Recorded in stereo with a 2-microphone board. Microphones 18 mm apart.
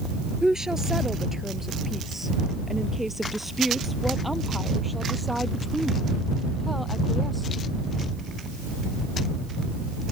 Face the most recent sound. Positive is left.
turn(degrees=5)  # may be behind; listen again after turning